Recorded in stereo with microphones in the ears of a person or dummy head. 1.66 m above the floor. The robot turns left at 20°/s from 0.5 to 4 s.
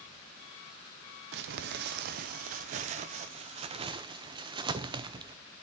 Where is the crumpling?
55° right (ahead or behind), 0.7 m; by 5.4 s 25° right (ahead or behind), 0.7 m.